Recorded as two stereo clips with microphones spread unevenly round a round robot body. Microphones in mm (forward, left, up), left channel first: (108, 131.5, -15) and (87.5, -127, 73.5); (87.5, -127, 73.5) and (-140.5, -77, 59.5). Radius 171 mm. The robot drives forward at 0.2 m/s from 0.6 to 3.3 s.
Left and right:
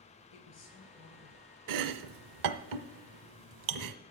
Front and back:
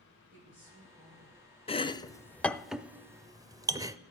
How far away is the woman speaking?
About 5.5 m.